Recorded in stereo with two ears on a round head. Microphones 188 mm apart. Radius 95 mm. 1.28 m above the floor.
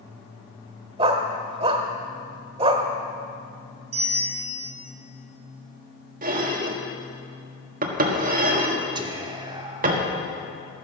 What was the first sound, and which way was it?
A dog barking, 25° right (ahead or behind).